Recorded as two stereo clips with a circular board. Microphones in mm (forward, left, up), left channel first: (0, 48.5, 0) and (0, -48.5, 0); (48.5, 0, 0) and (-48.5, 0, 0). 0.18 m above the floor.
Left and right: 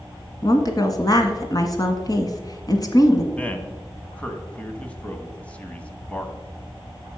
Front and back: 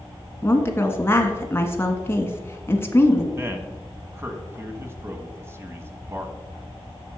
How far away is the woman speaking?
About 1.5 m.